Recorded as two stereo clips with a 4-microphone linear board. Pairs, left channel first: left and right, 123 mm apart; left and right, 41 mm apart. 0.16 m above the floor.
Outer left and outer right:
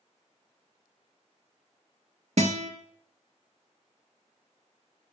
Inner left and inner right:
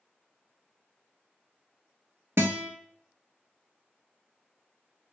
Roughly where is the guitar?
Right.